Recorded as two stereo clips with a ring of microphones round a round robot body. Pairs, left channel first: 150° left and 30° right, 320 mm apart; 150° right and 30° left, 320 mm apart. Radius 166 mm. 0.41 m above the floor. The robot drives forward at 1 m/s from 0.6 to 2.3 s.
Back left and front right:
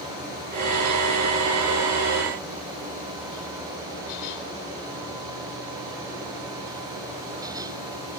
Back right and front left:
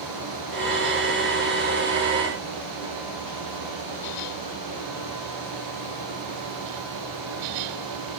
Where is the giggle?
No giggle in this recording.